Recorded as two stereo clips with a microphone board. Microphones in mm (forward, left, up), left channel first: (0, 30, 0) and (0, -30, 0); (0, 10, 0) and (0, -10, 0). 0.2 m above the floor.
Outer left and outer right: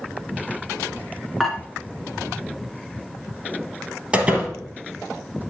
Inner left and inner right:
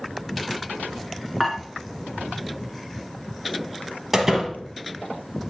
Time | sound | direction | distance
1.4 | dishes clattering | centre (ahead or behind) | 1.6 m
4.1 | a door slam | 15° right (ahead or behind) | 2.5 m